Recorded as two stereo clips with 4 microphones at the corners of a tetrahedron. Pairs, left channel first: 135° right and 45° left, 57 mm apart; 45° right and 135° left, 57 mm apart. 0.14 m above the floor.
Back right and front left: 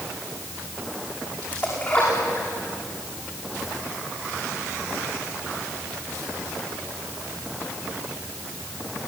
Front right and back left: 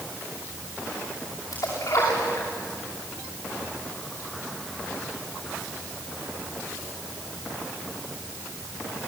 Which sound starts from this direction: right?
A splash, at 1.5 s.